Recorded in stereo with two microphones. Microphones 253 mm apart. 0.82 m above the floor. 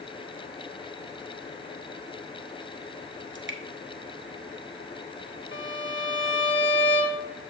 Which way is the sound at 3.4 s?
50° right (ahead or behind).